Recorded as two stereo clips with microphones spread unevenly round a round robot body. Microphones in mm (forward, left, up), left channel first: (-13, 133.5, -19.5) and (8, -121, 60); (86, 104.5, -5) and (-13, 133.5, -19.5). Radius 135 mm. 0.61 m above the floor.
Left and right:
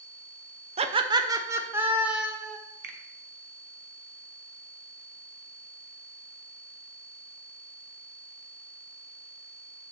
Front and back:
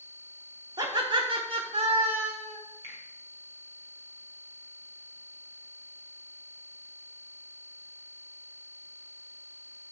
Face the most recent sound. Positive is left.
turn(degrees=-145)